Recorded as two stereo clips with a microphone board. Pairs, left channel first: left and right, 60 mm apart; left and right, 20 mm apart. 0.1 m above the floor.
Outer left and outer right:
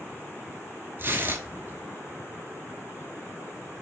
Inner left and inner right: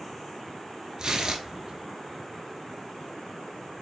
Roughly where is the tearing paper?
Right.